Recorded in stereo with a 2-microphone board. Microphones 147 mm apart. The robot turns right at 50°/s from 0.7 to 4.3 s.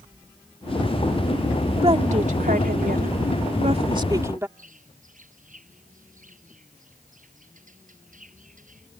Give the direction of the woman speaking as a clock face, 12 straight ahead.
5 o'clock.